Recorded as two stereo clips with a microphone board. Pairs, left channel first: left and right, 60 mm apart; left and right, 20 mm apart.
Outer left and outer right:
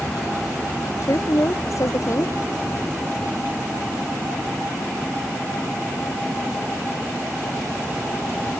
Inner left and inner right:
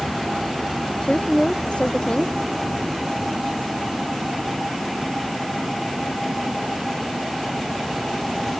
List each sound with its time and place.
1.0 s a woman speaking: 55° left (ahead or behind)